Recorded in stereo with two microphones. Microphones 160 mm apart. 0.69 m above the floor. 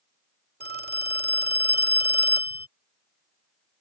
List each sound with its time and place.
0.6 s a phone ringing: 80° right